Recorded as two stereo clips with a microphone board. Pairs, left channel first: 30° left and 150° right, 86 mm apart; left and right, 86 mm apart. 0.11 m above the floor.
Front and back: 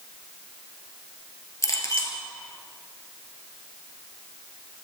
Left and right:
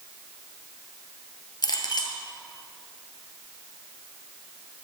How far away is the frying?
No frying in this recording.